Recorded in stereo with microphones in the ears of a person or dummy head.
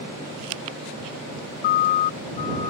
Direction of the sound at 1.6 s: 50° left (ahead or behind).